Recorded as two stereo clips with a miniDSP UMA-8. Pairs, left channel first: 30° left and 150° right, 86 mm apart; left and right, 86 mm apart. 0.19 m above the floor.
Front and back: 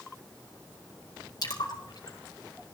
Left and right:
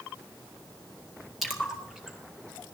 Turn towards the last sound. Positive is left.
turn(degrees=0)